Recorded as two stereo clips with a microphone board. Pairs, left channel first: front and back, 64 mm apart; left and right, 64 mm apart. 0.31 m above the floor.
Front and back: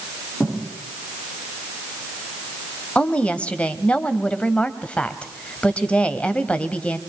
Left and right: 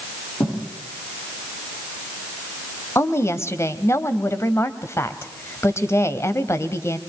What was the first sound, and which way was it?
A thud, 80° left.